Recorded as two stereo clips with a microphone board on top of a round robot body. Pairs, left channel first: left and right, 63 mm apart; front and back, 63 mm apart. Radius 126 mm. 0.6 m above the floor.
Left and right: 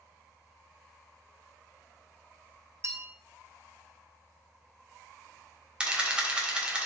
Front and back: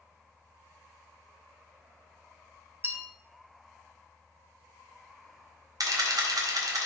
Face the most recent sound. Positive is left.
turn(degrees=-165)